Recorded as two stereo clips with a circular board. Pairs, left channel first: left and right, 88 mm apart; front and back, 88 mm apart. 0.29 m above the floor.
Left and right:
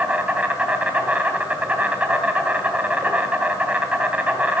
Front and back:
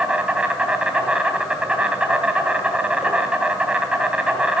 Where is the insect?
130° right, 2 m.